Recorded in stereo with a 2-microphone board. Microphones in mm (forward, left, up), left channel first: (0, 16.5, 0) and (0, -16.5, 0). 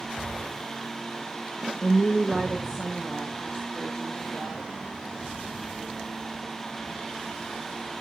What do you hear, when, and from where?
1.8 s a woman speaking: 25° left (ahead or behind), 0.8 m; by 4.8 s 55° right (ahead or behind), 4 m